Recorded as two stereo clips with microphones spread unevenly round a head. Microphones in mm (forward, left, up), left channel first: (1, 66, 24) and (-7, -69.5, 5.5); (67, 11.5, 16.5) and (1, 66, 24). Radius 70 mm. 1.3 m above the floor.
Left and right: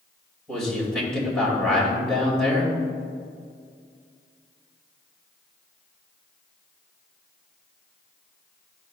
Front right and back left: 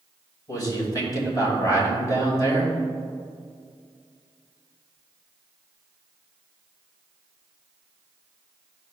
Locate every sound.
0.5 s a man speaking: straight ahead, 2.5 m